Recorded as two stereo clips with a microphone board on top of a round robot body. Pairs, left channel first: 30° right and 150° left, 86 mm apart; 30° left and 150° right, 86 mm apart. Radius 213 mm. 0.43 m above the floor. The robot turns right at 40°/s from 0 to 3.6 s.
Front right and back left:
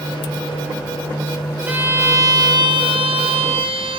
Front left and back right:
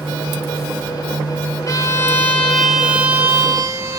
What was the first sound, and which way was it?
A violin, 80° left.